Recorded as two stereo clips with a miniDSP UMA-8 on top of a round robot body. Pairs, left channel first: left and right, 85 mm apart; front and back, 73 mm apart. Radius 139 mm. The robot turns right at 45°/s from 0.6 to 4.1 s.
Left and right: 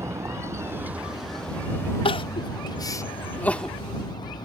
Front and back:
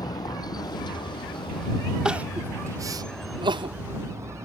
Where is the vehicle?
30° right; by 4.5 s 125° left.